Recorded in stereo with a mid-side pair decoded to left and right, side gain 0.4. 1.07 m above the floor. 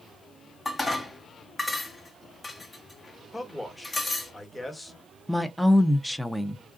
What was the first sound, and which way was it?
Dishes clattering, 25° left.